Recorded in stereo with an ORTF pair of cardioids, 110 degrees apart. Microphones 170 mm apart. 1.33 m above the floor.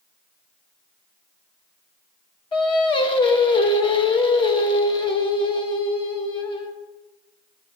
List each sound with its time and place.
2.5 s singing: 30° left, 1.1 m